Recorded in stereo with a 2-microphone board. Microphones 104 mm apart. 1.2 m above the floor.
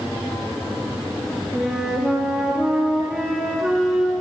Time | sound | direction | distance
1.5 | a flute | 5° right (ahead or behind) | 3 m